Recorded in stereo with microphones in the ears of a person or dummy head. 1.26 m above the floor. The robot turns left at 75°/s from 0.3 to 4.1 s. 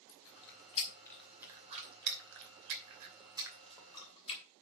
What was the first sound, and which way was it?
Chewing, 70° left (ahead or behind).